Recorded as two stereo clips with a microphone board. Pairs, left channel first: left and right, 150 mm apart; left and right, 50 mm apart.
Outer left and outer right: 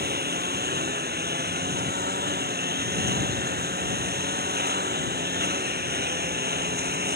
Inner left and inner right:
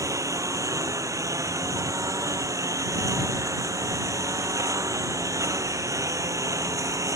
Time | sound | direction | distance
0.0 | a lawn mower | 85° right | ?